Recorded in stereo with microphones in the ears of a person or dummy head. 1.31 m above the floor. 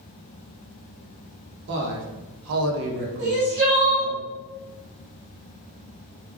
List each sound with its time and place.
1.7 s a man speaking: 55° right (ahead or behind), 0.9 m; by 4.2 s 10° right (ahead or behind), 0.9 m
3.2 s crying: 40° right (ahead or behind), 1.4 m